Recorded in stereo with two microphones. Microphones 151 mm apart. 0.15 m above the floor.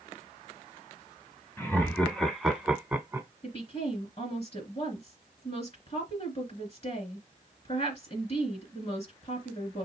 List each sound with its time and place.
1.6 s laughter: 15° left (ahead or behind), 1.4 m; by 3.3 s 15° right (ahead or behind), 1.3 m
3.4 s a woman speaking: 45° left (ahead or behind), 2.5 m